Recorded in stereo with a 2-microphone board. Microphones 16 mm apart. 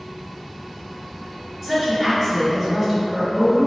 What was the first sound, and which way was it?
A woman speaking, centre (ahead or behind).